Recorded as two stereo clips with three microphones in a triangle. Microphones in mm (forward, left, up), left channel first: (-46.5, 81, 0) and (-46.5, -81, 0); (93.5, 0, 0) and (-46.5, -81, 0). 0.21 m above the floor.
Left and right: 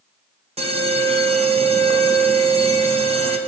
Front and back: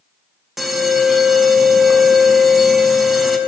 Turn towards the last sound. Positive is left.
turn(degrees=-60)